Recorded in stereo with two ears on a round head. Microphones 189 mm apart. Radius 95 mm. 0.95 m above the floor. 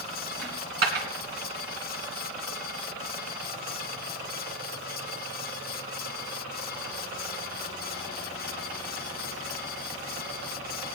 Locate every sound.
0.4 s a dropped coin: 55° right (ahead or behind), 2.5 m